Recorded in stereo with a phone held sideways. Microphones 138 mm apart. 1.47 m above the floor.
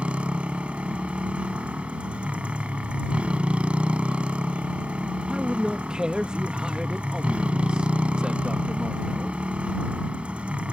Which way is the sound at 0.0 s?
10° right (ahead or behind).